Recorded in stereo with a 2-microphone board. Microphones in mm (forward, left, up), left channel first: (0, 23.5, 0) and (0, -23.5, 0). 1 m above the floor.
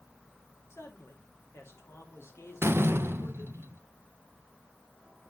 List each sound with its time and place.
0.7 s a man speaking: 70° left (ahead or behind), 2 m
2.6 s a door slam: 55° right (ahead or behind), 0.6 m